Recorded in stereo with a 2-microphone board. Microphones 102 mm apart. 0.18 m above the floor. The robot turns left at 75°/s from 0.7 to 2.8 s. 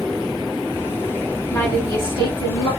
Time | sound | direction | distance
1.5 | a woman speaking | 160° left | 2.5 m